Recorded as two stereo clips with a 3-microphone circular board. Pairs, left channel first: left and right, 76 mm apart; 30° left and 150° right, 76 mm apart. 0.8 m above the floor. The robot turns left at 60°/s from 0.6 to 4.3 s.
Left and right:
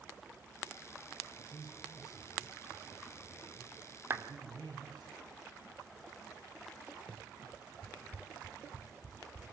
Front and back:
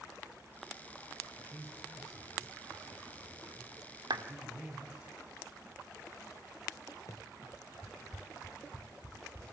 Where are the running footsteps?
20° left, 1.1 m; by 9.4 s 10° right, 4 m.